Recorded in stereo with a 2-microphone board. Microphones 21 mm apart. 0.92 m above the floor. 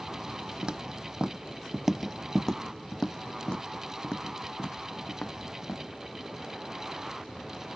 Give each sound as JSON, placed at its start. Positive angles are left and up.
{"t": 0.6, "sound": "footsteps", "side_deg": -45}